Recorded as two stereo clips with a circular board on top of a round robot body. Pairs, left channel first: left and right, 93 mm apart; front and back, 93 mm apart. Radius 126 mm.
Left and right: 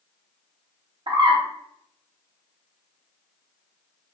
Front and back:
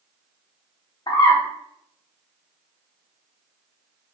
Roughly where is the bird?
Ahead right.